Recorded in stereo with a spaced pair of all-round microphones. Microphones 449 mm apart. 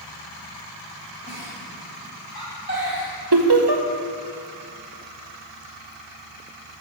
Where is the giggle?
25° right (ahead or behind), 3.5 m.